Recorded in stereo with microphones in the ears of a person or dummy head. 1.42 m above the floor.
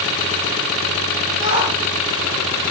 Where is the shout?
65° right (ahead or behind), 5 m.